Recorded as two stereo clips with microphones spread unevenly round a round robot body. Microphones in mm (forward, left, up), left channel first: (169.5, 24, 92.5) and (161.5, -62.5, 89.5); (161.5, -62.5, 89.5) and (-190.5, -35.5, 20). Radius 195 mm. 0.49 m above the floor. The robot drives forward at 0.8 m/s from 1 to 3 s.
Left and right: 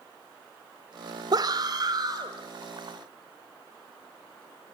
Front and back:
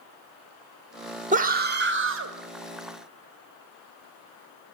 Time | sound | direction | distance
1.3 | a scream | 125° right | 1.9 m